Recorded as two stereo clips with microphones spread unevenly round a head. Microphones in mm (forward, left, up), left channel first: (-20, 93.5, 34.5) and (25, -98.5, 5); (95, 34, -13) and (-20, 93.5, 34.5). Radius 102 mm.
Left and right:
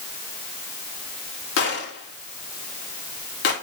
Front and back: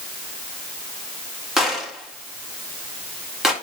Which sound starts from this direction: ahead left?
A gunshot, at 1.6 s.